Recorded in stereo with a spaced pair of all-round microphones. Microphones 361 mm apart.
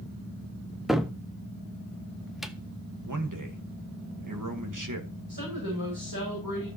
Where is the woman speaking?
75° right (ahead or behind), 6.5 m.